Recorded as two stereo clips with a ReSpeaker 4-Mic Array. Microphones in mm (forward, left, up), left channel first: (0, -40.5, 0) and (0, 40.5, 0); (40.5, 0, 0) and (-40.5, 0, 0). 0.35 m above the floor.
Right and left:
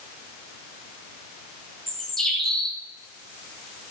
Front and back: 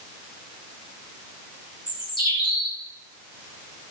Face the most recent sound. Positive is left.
turn(degrees=0)